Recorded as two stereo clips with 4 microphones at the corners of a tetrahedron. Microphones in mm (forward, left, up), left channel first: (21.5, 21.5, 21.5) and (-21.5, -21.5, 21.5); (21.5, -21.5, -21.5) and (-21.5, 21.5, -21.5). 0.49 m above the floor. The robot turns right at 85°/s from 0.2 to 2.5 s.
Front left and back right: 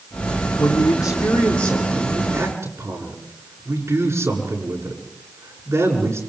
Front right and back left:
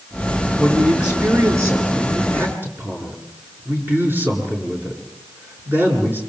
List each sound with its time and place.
0.6 s a man speaking: 25° left, 8.5 m; by 6.2 s 170° right, 8.5 m